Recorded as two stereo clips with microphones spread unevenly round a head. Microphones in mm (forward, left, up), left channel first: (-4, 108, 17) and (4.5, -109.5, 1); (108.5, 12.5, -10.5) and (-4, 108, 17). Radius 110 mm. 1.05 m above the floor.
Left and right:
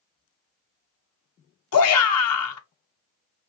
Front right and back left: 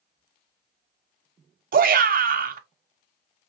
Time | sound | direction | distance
1.7 | a shout | 110° left | 1.1 m